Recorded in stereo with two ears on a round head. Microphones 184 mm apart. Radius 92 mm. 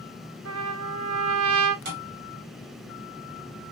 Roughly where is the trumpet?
Right.